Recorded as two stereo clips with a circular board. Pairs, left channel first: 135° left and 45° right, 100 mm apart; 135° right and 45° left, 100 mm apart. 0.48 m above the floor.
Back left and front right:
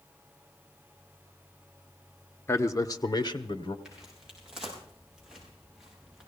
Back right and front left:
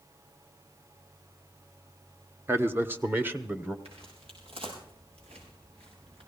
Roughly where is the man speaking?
Left.